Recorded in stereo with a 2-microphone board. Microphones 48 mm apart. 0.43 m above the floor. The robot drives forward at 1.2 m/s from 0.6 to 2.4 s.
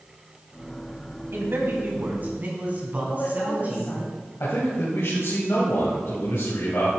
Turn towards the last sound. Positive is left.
turn(degrees=60)  # may be behind; listen again after turning